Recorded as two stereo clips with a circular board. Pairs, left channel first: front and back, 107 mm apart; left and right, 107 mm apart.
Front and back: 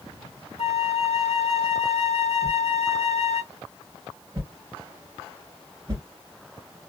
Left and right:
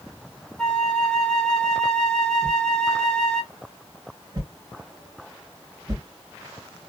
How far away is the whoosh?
About 2 m.